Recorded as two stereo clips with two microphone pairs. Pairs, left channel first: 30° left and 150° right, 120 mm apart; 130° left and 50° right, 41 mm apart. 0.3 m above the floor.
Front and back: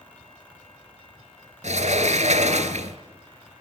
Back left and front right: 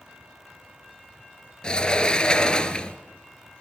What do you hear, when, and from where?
1.6 s a sliding door: 160° right, 1.6 m